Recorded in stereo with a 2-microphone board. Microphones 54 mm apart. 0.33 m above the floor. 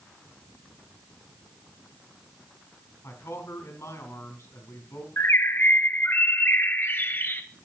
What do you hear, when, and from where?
3.0 s a man speaking: 65° left (ahead or behind), 3.5 m
5.2 s a bird: 40° left (ahead or behind), 0.9 m